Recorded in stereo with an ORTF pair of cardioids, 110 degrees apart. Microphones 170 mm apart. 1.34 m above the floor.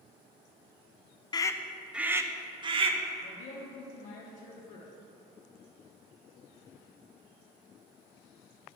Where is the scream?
25° left, 0.6 m; by 3.0 s 35° right, 1.0 m.